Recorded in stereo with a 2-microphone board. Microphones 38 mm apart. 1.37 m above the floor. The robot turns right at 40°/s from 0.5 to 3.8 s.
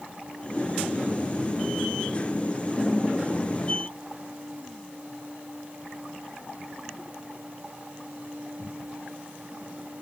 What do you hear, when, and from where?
Only background noise.